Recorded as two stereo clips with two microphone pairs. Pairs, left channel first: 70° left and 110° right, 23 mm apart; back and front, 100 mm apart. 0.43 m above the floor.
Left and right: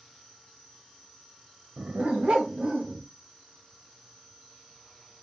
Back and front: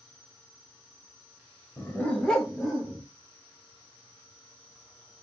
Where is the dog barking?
115° right, 0.6 m; by 3.0 s 85° right, 1.3 m.